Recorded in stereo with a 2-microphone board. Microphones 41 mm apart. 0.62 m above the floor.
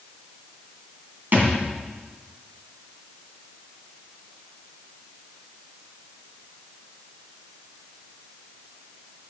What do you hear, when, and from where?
1.3 s a thud: 50° right (ahead or behind), 1.8 m